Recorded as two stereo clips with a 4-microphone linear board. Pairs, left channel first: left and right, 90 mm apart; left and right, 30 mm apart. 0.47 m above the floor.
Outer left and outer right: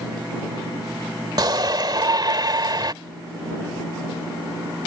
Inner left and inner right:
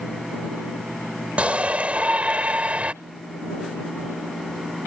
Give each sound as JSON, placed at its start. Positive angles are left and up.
{"t": 1.4, "sound": "a shout", "side_deg": -50}